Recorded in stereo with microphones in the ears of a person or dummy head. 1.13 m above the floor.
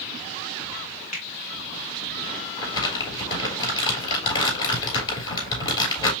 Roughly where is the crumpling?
Left.